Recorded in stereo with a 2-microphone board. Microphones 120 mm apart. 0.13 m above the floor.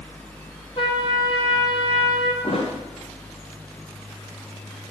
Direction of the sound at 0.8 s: 40° left (ahead or behind).